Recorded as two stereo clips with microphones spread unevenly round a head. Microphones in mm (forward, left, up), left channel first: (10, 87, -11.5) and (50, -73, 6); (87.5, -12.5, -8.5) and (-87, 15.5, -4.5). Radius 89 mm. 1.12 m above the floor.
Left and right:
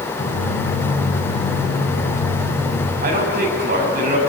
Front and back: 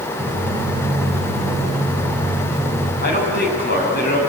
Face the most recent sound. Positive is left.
turn(degrees=-45)